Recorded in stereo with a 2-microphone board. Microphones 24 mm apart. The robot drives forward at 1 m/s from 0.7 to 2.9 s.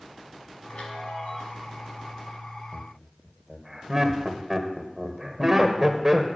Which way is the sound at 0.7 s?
60° left (ahead or behind).